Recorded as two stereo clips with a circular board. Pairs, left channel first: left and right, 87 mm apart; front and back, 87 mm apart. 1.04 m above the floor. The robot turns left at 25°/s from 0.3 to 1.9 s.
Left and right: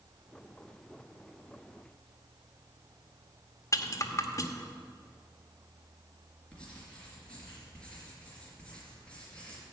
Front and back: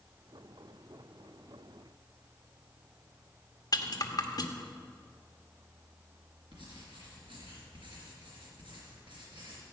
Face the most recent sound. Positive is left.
turn(degrees=170)